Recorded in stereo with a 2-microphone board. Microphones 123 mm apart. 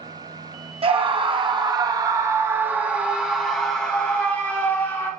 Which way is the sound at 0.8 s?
45° right (ahead or behind).